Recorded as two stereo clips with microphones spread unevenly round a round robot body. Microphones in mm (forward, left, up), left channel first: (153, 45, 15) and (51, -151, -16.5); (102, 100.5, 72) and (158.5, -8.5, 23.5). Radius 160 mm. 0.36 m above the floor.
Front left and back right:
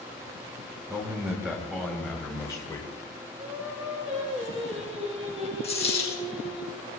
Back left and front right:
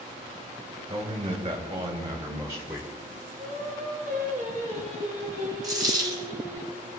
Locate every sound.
0.9 s a man speaking: 40° right, 2.5 m; by 2.9 s 10° right, 1.7 m
3.4 s singing: 55° right, 4.5 m
5.6 s a dropped coin: straight ahead, 5 m